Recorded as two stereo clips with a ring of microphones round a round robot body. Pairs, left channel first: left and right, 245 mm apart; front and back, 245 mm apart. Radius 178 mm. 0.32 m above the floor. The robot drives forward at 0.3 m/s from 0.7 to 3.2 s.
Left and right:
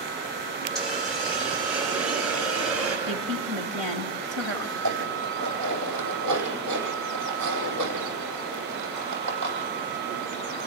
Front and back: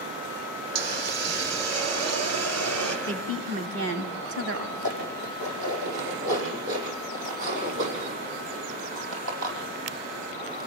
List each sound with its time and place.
0.8 s a hiss: straight behind, 3 m
3.1 s a woman speaking: straight behind, 2.5 m
4.8 s dishes clattering: 150° right, 9 m